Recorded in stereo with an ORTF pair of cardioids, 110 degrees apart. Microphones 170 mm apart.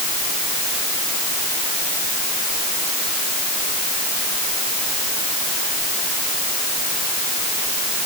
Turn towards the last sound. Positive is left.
No sound to turn to.